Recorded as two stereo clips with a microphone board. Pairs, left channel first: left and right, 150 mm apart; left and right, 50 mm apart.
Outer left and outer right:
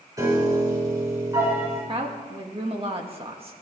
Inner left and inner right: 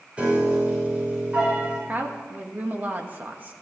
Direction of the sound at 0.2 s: 25° right (ahead or behind).